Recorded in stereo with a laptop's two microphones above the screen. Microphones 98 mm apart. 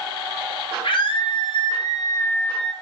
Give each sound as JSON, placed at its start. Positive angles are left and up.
{"t": 0.8, "sound": "a scream", "side_deg": 65, "distance_m": 1.8}